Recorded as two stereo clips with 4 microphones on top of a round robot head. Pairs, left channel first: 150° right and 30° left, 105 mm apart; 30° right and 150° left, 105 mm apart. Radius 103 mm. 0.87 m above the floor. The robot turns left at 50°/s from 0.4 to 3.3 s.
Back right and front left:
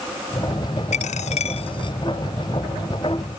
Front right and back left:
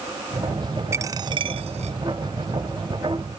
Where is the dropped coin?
145° right; by 2.0 s 160° left.